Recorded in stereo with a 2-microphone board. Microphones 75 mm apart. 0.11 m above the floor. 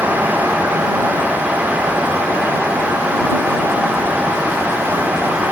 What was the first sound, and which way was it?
Only background noise.